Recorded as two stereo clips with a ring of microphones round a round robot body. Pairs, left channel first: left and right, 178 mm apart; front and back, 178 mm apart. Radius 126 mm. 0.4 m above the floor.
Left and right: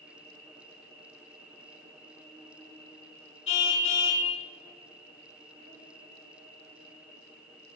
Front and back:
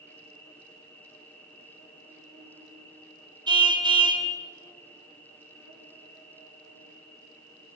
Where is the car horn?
115° left, 2.5 m.